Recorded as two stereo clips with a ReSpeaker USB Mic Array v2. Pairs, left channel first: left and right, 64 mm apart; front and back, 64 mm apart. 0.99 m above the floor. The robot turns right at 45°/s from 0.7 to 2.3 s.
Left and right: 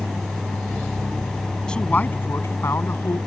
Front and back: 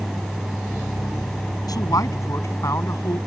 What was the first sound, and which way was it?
A man speaking, 10° left.